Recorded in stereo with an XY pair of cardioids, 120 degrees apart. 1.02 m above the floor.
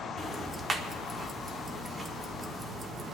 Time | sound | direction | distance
0.2 | ticking | 25° right | 1.4 m